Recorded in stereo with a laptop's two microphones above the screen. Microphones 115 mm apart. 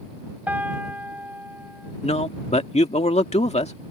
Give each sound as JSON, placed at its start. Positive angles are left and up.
{"t": 0.5, "sound": "a piano", "side_deg": -15}
{"t": 2.0, "sound": "a man speaking", "side_deg": 70}